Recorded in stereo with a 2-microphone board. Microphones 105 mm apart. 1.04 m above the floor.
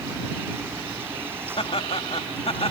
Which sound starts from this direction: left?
Laughter, at 1.6 s.